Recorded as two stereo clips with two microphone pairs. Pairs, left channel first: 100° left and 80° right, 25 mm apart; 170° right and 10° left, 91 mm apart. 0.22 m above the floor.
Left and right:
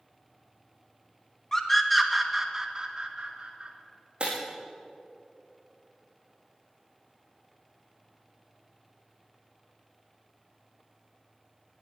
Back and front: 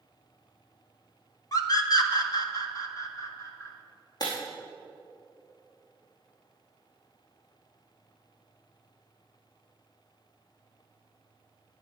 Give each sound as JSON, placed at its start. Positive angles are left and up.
{"t": 1.5, "sound": "a scream", "azimuth_deg": 165, "distance_m": 1.8}
{"t": 4.2, "sound": "breaking glass", "azimuth_deg": -125, "distance_m": 4.5}